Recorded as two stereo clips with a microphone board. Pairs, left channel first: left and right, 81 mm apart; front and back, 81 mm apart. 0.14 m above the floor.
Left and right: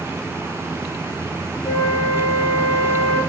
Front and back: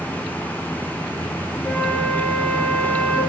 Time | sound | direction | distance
1.6 | a flute | 65° left | 3 m